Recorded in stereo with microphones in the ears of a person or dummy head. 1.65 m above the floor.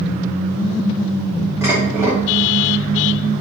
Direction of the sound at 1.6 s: 5° right (ahead or behind).